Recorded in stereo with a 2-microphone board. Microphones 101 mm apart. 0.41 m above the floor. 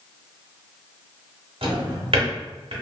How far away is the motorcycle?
No motorcycle in this recording.